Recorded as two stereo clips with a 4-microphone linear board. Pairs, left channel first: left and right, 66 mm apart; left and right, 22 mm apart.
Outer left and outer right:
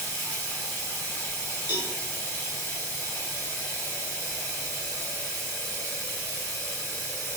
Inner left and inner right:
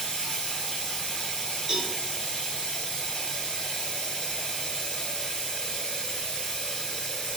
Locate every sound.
0.0 s running water: 45° left (ahead or behind), 1.7 m
1.7 s a cowbell: 35° right (ahead or behind), 1.0 m